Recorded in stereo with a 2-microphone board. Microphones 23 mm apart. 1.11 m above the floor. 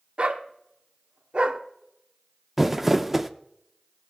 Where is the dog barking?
55° right (ahead or behind), 0.9 m.